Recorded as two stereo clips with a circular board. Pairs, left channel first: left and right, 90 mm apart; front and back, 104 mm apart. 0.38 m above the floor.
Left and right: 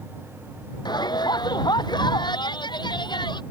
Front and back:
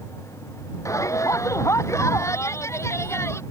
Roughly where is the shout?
Ahead left.